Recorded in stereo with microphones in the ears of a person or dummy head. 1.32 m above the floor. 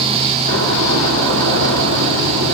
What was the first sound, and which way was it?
A door slam, 75° right (ahead or behind).